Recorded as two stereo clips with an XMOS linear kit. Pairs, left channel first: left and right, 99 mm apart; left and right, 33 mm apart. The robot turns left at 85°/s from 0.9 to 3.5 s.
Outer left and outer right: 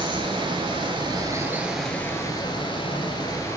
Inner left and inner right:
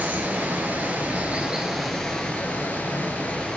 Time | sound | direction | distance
0.0 | running water | 105° right | 0.9 m